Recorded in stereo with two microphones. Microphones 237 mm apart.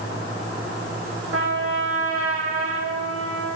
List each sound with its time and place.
1.3 s a trumpet: 70° right (ahead or behind), 5 m